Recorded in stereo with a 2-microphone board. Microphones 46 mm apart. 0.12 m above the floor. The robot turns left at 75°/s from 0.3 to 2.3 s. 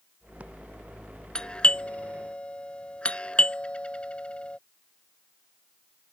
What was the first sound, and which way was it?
A doorbell, 20° left (ahead or behind).